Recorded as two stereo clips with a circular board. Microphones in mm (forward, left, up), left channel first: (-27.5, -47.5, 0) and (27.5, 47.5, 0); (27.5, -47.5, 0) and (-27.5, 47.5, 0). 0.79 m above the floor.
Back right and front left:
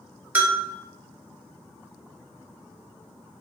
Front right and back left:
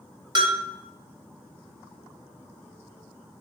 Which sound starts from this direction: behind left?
A bell, at 0.3 s.